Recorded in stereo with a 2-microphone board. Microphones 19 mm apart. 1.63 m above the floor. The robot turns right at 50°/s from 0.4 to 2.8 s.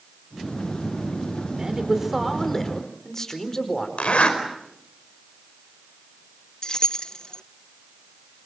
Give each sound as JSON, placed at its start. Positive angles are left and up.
{"t": 1.6, "sound": "a man speaking", "azimuth_deg": -40, "distance_m": 4.5}
{"t": 4.0, "sound": "a zipper", "side_deg": 80, "distance_m": 4.5}
{"t": 6.6, "sound": "keys jangling", "side_deg": 40, "distance_m": 0.8}